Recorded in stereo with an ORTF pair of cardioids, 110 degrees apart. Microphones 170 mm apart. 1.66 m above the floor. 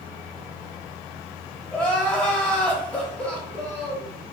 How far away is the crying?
About 0.8 m.